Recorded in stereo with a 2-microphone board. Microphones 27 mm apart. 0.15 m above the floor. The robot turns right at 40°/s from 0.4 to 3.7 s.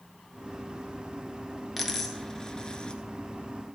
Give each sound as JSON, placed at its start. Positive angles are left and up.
{"t": 1.8, "sound": "a dropped coin", "side_deg": 0, "distance_m": 1.1}